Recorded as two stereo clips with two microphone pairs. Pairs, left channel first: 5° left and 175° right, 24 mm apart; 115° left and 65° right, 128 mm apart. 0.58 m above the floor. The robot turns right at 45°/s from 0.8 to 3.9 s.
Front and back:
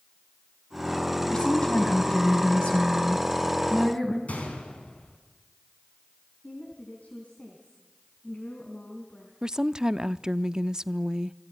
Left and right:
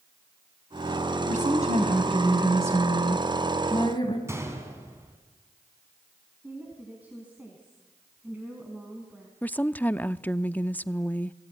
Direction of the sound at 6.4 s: 15° left.